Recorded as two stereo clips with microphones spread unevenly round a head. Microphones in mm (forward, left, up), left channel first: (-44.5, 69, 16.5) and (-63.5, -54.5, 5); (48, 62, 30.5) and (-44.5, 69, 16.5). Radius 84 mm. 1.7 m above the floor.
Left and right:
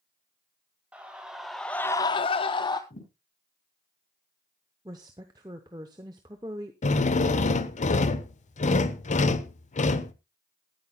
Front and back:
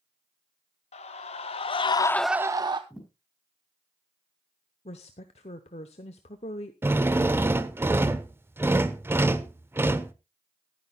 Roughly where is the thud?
Left.